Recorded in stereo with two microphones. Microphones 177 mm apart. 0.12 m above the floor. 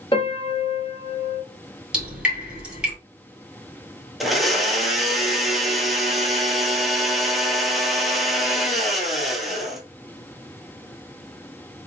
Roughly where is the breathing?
I don't hear breathing.